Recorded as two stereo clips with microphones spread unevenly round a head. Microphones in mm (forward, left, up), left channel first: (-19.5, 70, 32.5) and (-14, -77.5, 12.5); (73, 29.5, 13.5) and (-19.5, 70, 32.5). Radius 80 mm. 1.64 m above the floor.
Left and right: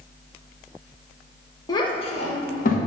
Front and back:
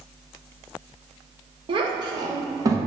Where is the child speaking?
150° left, 1.0 m; by 2.8 s 110° left, 1.3 m.